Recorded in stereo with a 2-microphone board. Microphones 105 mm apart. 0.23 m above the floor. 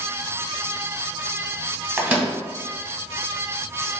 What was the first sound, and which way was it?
A microwave, 10° right (ahead or behind).